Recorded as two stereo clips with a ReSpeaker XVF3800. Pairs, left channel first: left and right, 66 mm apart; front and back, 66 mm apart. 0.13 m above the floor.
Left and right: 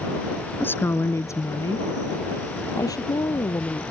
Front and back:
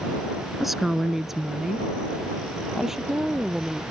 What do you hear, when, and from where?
0.6 s a woman speaking: 95° left